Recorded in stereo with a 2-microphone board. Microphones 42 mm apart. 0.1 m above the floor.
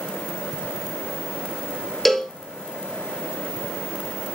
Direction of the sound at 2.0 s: 5° left (ahead or behind).